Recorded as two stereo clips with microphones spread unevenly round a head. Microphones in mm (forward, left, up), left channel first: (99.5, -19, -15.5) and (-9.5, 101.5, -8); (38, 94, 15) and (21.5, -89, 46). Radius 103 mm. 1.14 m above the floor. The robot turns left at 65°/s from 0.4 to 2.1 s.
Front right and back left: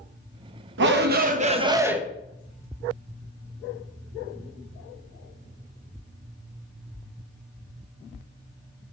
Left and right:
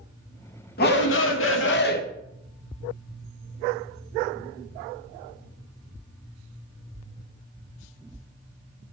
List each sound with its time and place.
0.8 s a shout: 125° left, 1.1 m; by 2.0 s 45° left, 1.1 m